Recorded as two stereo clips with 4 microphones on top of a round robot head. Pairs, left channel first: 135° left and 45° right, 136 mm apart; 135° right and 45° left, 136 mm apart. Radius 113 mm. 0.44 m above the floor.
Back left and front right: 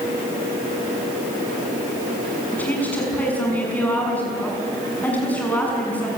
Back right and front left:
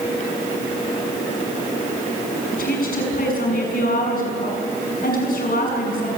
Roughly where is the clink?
No clink in this recording.